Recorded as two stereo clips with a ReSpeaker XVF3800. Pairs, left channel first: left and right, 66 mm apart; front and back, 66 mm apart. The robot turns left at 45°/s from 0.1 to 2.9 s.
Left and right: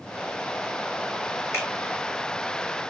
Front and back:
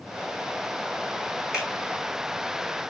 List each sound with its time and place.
1.5 s a finger snap: 115° left, 1.8 m; by 1.7 s 105° left, 1.8 m